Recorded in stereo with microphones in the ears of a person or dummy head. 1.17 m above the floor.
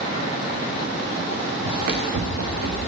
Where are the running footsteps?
60° right (ahead or behind), 4.5 m; by 2.8 s 65° right (ahead or behind), 6 m.